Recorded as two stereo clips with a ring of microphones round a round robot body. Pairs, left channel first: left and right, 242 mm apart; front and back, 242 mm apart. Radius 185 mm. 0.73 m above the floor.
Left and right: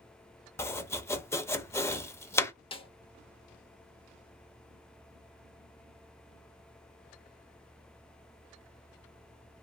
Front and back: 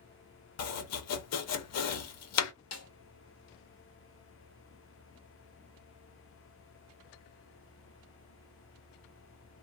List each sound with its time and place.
0.6 s chopping: 10° left, 0.6 m
2.7 s a snare drum: 20° left, 0.7 m